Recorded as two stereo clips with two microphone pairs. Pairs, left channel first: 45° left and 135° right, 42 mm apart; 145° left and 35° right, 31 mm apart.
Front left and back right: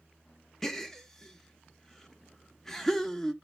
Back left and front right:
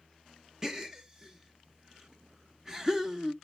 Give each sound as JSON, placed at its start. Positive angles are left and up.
{"t": 0.6, "sound": "a gasp", "azimuth_deg": -20, "distance_m": 0.9}